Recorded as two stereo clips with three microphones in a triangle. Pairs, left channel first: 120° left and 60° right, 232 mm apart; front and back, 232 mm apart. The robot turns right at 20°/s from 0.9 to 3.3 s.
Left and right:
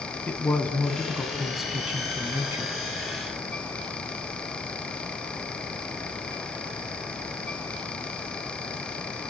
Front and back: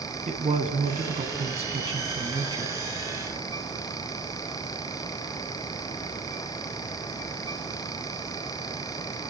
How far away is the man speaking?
About 1.1 m.